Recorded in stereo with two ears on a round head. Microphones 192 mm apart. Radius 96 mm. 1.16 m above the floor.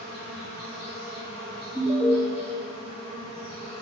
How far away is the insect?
About 2.5 m.